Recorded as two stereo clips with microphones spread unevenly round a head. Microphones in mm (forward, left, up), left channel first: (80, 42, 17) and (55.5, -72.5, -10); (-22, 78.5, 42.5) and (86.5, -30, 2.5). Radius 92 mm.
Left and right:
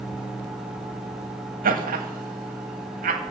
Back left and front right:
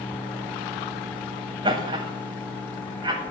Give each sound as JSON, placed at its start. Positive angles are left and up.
{"t": 1.6, "sound": "laughter", "azimuth_deg": -115, "distance_m": 1.4}